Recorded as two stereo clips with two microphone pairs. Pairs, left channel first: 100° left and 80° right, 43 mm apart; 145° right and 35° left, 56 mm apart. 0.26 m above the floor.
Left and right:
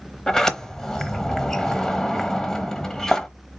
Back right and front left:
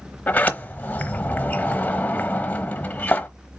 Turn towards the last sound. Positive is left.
turn(degrees=170)